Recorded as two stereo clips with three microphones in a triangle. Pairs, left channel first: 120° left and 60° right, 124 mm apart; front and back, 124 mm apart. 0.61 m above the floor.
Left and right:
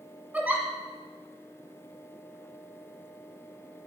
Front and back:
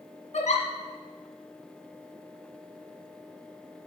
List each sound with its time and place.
0.3 s a giggle: 20° left, 1.6 m